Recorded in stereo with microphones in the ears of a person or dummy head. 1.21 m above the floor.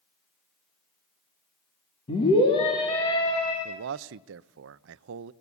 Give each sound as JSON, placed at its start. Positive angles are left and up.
{"t": 2.1, "sound": "a scream", "side_deg": 30, "distance_m": 3.0}
{"t": 3.6, "sound": "a man speaking", "side_deg": -75, "distance_m": 0.6}